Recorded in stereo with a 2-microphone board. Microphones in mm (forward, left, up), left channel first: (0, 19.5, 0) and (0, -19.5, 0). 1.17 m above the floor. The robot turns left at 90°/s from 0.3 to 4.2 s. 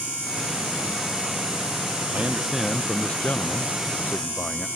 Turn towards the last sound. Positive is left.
turn(degrees=45)